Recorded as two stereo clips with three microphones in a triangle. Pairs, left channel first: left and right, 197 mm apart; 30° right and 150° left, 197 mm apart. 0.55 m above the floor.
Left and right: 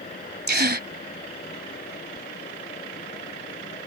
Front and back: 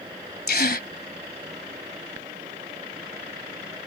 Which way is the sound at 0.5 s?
65° right.